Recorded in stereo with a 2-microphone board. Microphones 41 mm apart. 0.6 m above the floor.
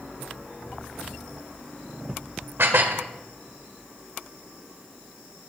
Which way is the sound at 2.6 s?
70° right (ahead or behind).